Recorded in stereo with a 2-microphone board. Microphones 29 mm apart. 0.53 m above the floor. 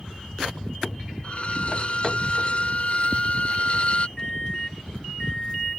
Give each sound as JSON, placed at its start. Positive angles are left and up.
{"t": 1.2, "sound": "a violin", "side_deg": 45}
{"t": 4.2, "sound": "a microwave", "side_deg": 25}